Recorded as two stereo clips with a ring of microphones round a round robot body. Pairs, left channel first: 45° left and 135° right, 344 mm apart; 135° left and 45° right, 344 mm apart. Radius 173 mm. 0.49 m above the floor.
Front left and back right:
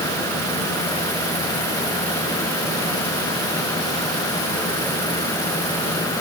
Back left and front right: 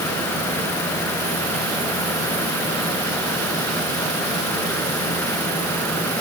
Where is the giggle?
I don't hear a giggle.